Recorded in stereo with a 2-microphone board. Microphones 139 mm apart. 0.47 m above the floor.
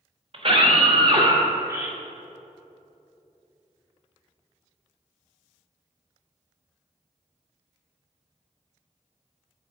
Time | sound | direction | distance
0.3 | a scream | 50° right (ahead or behind) | 1.9 m